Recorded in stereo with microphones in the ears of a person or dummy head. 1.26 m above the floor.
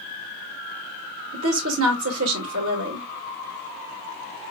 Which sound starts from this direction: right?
A woman speaking, at 1.3 s.